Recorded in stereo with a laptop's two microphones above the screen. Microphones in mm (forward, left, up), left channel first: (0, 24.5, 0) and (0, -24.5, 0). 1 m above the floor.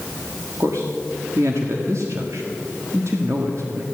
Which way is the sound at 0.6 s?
70° right (ahead or behind).